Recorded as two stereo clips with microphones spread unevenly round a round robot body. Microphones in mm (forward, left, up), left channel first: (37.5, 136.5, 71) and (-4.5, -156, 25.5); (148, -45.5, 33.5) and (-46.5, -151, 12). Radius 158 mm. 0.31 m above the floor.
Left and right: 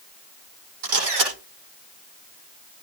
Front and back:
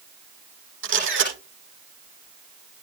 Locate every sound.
0.8 s a camera shutter: 120° right, 9.5 m